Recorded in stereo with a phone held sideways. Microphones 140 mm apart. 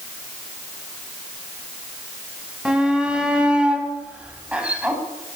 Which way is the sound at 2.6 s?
5° right (ahead or behind).